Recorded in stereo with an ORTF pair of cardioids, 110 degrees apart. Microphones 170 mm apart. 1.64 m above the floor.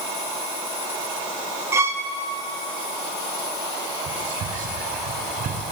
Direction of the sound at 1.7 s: 15° right.